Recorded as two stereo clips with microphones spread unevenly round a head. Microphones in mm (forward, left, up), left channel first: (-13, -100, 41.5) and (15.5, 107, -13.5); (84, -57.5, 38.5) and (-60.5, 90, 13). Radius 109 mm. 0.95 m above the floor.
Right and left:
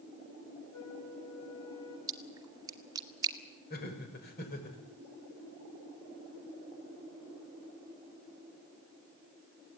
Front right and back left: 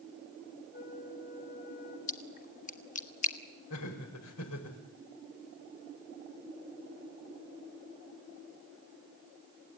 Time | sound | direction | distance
0.7 | a flute | 90° right | 4.5 m
2.1 | a splash | 10° left | 1.6 m
3.7 | laughter | 50° right | 5 m